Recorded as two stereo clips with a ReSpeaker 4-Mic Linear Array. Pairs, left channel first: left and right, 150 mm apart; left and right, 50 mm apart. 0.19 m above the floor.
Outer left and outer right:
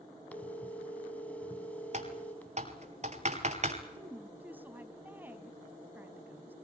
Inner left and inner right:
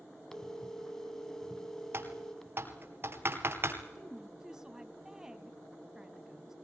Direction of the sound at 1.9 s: 50° right (ahead or behind).